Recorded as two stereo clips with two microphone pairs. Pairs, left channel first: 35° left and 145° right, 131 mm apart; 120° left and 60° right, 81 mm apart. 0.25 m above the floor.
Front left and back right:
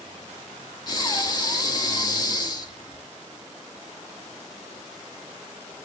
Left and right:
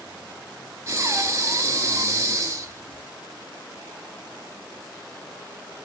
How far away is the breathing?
About 0.6 m.